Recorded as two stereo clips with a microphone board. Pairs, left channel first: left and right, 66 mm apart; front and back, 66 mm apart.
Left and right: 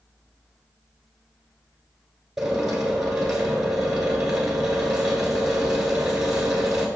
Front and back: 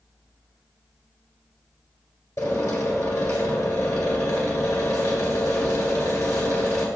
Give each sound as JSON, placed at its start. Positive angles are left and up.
{"t": 2.4, "sound": "a drill", "azimuth_deg": -10, "distance_m": 1.9}